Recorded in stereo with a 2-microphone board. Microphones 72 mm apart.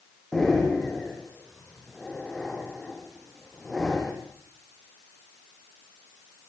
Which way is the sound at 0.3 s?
5° left (ahead or behind).